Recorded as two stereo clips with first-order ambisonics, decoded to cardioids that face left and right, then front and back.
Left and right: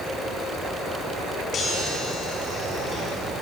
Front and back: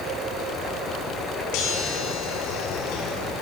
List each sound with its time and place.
1.5 s a chime: 25° left, 6 m